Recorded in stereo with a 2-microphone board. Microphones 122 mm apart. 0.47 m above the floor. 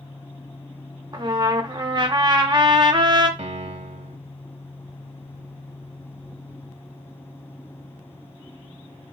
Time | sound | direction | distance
1.1 | a trumpet | 40° right (ahead or behind) | 0.6 m
3.4 | a piano | 65° right (ahead or behind) | 0.6 m